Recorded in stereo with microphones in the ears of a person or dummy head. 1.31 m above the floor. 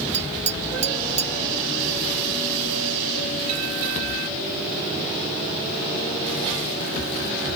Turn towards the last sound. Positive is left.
turn(degrees=-40)  # may be behind; listen again after turning